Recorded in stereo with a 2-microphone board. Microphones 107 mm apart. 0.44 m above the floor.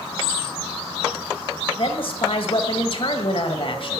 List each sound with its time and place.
1.8 s a woman speaking: 55° left (ahead or behind), 2 m